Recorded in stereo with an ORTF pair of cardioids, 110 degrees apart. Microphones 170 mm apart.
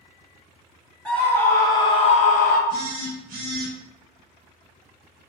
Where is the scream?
5° left, 0.9 m; by 2.6 s 70° left, 0.5 m.